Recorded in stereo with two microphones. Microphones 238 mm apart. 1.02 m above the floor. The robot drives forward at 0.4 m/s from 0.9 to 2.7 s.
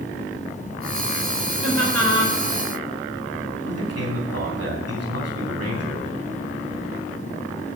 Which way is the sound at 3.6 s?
75° right (ahead or behind).